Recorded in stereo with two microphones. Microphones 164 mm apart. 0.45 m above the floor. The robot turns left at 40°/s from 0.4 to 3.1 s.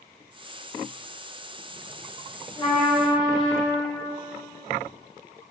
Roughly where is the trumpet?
Centre.